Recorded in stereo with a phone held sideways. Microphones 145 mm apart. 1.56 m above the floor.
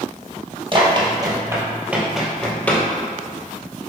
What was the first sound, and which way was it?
Running footsteps, 40° right (ahead or behind).